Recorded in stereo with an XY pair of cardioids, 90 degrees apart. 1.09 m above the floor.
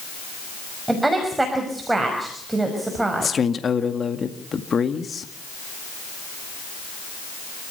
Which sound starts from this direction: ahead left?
A man speaking, at 3.2 s.